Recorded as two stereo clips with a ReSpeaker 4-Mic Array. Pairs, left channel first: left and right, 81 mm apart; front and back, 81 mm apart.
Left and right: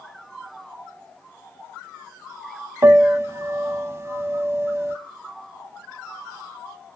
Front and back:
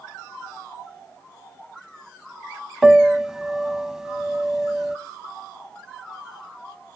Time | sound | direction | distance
2.8 | a piano | 100° right | 0.6 m